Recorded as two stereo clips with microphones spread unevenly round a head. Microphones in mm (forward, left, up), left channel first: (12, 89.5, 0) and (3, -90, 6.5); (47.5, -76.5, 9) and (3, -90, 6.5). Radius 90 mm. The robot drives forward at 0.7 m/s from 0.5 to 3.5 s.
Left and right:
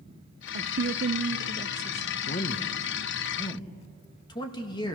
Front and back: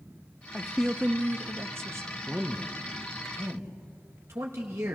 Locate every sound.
0.5 s a woman speaking: 65° right, 0.6 m; by 2.2 s 155° right, 1.1 m
2.3 s a man speaking: 120° left, 0.9 m; by 5.0 s 155° left, 1.5 m